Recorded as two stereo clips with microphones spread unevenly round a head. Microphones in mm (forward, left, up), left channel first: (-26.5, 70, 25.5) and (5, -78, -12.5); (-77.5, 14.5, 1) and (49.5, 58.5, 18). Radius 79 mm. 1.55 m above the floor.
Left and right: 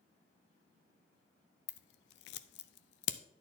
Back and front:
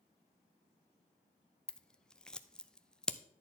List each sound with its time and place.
1.7 s scissors: 115° left, 0.6 m